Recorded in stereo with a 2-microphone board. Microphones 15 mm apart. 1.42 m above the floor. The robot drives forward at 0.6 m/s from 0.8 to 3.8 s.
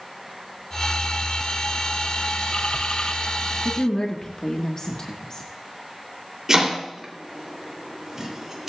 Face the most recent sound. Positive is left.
turn(degrees=-30)  # may be behind; listen again after turning